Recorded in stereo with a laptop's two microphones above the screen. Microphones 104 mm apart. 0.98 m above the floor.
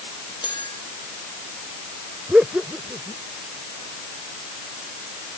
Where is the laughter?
10° right (ahead or behind).